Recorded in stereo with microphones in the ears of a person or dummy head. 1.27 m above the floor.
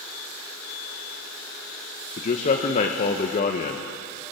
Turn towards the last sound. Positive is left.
turn(degrees=45)  # may be behind; listen again after turning